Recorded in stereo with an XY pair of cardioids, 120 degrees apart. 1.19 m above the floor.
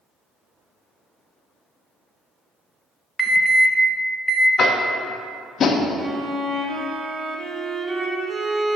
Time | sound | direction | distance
3.2 | an alarm | 5° right | 0.8 m
4.6 | tapping | 45° left | 0.8 m
6.0 | a violin | 40° right | 0.9 m